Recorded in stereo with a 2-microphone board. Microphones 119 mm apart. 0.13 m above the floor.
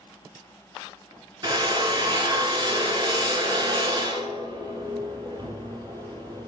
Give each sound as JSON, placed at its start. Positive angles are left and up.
{"t": 1.4, "sound": "a drill", "side_deg": -40, "distance_m": 0.8}